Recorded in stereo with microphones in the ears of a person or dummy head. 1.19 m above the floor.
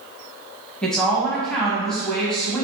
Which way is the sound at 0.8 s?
5° left (ahead or behind).